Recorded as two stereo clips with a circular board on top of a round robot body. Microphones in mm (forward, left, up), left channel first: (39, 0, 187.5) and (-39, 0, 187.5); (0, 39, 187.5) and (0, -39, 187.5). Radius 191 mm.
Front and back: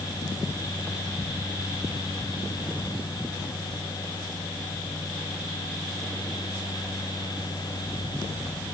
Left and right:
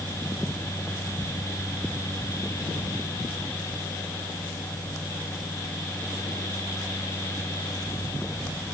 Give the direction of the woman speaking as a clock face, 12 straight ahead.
No woman speaking in this recording.